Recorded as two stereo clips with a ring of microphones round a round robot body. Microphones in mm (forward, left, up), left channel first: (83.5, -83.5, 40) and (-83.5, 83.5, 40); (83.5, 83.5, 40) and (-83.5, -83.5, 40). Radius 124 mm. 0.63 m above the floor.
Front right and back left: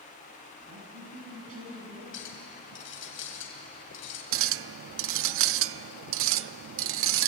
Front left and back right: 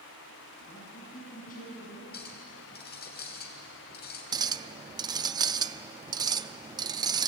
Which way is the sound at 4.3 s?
155° left.